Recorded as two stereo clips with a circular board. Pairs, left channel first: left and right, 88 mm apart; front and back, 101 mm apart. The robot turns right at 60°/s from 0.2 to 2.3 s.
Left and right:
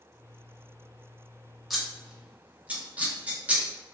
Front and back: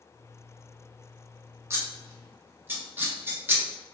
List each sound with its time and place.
1.7 s scissors: straight behind, 0.6 m; by 3.6 s 145° right, 0.6 m